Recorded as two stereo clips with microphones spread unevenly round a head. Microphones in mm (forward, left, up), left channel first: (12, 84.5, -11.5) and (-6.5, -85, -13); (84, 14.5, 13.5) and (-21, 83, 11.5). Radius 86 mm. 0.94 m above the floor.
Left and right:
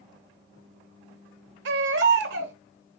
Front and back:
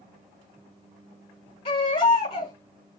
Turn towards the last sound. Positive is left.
turn(degrees=-90)